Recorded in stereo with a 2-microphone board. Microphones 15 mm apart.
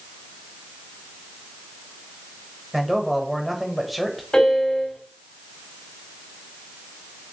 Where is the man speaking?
5° right (ahead or behind), 1.3 m.